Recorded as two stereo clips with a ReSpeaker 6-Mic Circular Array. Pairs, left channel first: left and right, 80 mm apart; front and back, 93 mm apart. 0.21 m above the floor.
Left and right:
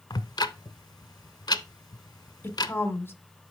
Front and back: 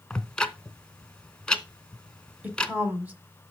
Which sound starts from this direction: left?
Ticking, at 0.1 s.